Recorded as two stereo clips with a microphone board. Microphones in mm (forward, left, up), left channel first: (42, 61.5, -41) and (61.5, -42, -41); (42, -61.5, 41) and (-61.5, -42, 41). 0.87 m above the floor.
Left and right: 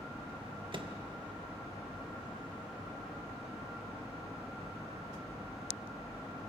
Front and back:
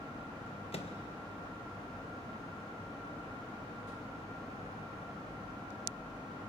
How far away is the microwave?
About 1.3 m.